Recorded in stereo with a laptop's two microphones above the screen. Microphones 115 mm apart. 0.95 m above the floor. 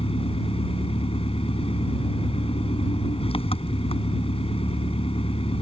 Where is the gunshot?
No gunshot in this recording.